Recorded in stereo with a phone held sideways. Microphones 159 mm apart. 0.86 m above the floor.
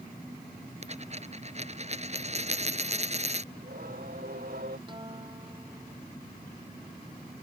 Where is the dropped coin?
45° right (ahead or behind).